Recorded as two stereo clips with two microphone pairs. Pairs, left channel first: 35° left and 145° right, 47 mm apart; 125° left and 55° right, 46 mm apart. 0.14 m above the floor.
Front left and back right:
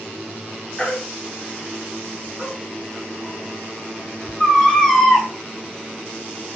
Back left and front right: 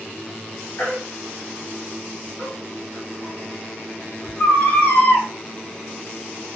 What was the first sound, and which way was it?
A baby crying, 105° left.